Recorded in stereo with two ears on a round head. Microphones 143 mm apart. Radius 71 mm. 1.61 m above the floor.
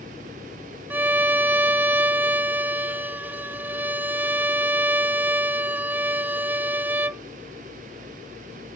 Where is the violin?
10° right (ahead or behind).